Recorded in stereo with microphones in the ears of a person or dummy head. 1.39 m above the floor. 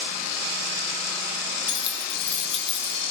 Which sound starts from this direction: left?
Keys jangling, at 1.7 s.